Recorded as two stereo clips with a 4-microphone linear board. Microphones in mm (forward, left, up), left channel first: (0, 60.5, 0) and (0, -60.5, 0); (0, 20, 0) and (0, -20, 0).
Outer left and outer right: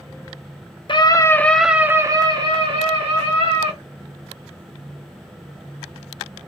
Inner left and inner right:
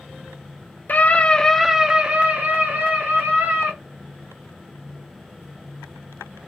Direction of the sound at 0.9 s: 45° left (ahead or behind).